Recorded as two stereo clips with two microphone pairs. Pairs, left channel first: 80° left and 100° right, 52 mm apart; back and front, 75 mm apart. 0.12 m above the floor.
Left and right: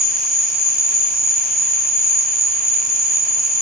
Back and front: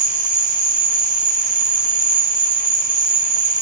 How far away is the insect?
About 1.3 m.